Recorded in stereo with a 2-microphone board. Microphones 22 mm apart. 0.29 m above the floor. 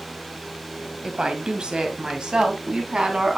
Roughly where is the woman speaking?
Right.